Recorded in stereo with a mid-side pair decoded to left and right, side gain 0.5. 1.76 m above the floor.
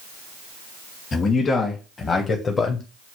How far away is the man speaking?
About 1.7 m.